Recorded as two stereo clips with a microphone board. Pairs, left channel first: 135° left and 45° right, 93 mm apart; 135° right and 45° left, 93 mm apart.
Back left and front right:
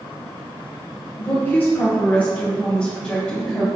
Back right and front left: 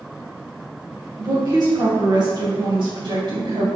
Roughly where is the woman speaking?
Left.